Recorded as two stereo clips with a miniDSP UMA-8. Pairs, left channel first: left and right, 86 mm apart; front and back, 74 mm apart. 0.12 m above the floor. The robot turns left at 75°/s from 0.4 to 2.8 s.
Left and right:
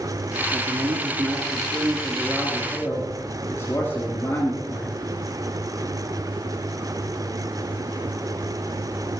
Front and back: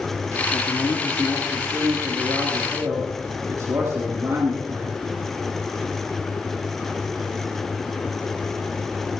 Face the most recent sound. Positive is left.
turn(degrees=145)